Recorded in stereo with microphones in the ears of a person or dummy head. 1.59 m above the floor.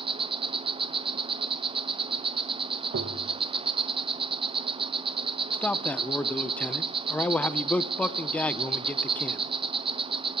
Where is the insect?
25° right (ahead or behind), 0.8 m.